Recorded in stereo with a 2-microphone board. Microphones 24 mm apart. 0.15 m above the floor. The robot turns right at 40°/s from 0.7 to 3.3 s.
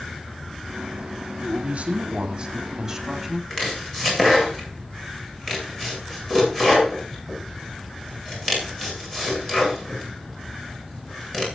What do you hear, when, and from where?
1.4 s a man speaking: 65° right, 6.5 m; by 3.4 s 10° left, 6.5 m
3.5 s chopping: 20° left (ahead or behind), 9 m